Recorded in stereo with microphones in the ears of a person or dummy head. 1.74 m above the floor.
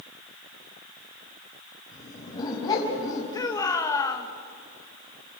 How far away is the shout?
About 1.7 m.